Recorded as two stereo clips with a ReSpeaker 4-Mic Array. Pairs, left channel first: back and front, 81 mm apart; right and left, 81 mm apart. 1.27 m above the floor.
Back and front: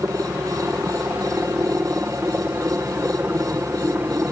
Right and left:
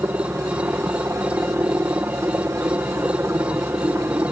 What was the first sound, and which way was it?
A helicopter, 50° left.